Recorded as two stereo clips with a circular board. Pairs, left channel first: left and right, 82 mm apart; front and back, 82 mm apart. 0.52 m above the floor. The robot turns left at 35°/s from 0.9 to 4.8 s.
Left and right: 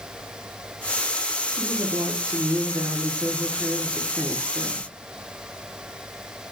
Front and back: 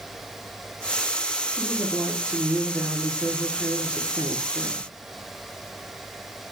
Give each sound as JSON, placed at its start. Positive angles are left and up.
{"t": 1.5, "sound": "a woman speaking", "azimuth_deg": -60, "distance_m": 0.8}